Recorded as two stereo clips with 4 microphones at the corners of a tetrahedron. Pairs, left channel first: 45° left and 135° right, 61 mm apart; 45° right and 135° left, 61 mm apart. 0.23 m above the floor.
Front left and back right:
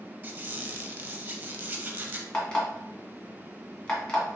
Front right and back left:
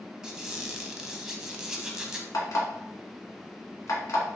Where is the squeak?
155° right, 0.6 m.